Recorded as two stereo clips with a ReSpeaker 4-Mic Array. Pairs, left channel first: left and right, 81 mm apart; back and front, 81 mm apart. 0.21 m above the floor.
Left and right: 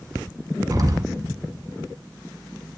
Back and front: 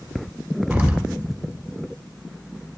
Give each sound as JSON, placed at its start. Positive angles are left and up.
{"t": 0.7, "sound": "an explosion", "azimuth_deg": -60, "distance_m": 1.2}